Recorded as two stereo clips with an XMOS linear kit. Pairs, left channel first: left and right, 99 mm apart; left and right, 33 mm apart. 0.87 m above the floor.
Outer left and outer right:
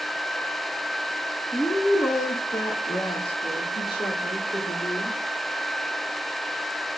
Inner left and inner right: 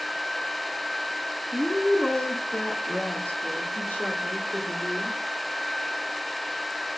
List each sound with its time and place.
1.5 s a woman speaking: 5° left (ahead or behind), 0.6 m; by 5.2 s 70° left (ahead or behind), 2.5 m